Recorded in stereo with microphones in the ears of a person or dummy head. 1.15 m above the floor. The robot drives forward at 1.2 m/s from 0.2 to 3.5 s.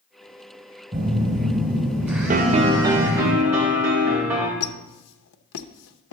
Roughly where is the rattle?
I don't hear a rattle.